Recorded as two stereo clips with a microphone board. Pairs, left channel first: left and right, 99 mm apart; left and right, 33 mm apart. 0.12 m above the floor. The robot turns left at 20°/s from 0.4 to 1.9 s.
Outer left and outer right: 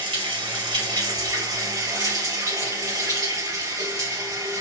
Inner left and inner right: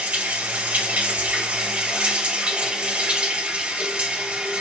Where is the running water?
100° right, 2.5 m; by 4.6 s 130° right, 2.5 m.